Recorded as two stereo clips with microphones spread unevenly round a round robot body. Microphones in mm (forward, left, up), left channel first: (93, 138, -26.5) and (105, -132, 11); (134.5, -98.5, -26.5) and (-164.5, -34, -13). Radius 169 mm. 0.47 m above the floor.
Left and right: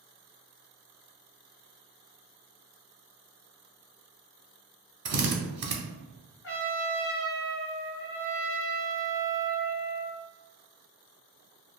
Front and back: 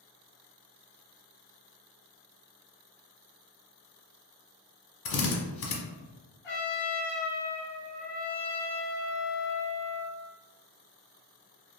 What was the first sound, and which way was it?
A drill, 40° right.